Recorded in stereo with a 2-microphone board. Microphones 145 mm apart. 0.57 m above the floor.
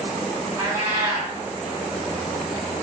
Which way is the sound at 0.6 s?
25° right (ahead or behind).